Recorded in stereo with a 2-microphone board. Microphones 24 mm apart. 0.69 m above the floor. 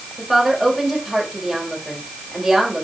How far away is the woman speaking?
About 3.5 m.